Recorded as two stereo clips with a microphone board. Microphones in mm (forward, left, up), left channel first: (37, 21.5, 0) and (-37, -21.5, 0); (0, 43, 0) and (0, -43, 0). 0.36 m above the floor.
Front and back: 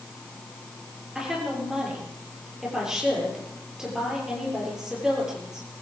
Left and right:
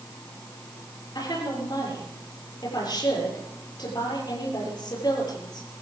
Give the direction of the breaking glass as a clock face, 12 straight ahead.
I don't hear breaking glass.